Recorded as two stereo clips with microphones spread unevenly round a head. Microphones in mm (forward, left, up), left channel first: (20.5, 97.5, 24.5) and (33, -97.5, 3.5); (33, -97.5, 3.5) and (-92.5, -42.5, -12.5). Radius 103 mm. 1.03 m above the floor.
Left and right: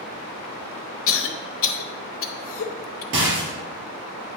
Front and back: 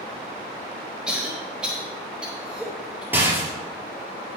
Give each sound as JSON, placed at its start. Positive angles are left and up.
{"t": 1.1, "sound": "a cough", "azimuth_deg": 70, "distance_m": 1.1}
{"t": 3.1, "sound": "a rattle", "azimuth_deg": -125, "distance_m": 3.5}